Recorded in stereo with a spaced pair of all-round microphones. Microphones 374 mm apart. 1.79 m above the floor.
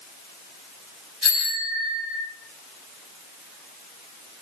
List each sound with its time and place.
1.2 s a bicycle bell: 40° right (ahead or behind), 9 m; by 2.2 s 35° right (ahead or behind), 8.5 m